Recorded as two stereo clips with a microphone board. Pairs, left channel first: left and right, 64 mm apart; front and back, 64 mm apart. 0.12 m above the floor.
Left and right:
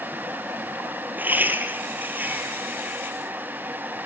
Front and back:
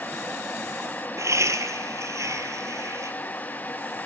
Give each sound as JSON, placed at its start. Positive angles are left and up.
{"t": 1.2, "sound": "laughter", "azimuth_deg": -150, "distance_m": 3.0}